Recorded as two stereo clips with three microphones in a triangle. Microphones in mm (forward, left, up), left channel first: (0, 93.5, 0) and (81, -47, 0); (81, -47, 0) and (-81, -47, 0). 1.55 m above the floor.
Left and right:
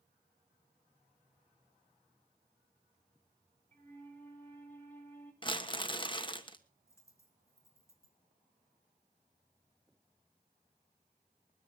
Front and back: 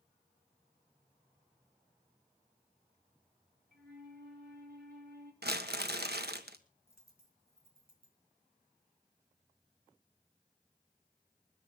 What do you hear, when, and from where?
3.7 s a flute: 160° right, 3.5 m
5.4 s crumpling: straight behind, 1.2 m
6.9 s a dropped coin: 170° right, 3.5 m